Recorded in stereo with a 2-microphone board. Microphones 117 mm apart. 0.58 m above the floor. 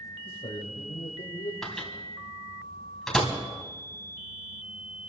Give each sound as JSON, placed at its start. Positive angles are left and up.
{"t": 0.2, "sound": "a man speaking", "side_deg": 70, "distance_m": 3.5}
{"t": 1.6, "sound": "a microwave", "side_deg": 0, "distance_m": 3.0}